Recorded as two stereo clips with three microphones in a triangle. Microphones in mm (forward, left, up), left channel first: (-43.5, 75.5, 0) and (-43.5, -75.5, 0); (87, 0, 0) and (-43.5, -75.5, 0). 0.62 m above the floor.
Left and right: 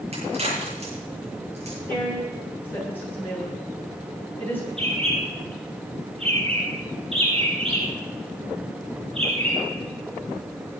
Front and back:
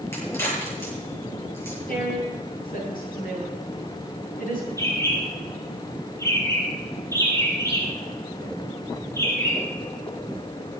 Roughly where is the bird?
Ahead right.